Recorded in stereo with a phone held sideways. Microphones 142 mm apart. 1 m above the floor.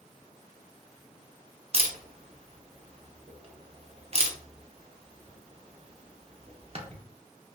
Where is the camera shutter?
45° right (ahead or behind), 0.5 m.